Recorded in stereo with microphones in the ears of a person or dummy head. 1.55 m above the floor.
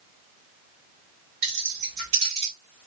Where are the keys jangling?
50° right (ahead or behind), 1.7 m; by 2.5 s 20° right (ahead or behind), 1.5 m.